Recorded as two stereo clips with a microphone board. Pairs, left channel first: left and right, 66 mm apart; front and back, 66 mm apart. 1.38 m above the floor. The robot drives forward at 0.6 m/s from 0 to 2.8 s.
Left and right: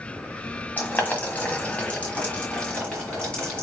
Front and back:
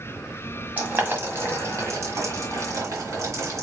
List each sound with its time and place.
0.8 s boiling: 135° left, 1.5 m; by 3.6 s 160° left, 2.5 m